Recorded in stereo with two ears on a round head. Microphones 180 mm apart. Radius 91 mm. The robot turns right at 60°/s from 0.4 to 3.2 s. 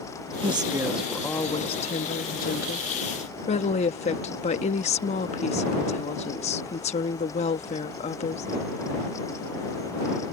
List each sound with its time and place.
0.4 s a woman speaking: 35° right; by 8.5 s 130° left